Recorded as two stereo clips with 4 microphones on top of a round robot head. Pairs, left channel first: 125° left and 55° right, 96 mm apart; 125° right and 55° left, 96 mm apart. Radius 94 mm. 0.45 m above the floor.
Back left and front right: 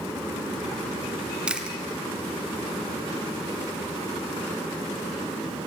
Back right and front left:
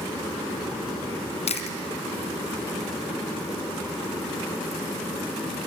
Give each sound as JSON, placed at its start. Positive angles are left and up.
{"t": 1.5, "sound": "chewing", "azimuth_deg": -140, "distance_m": 1.6}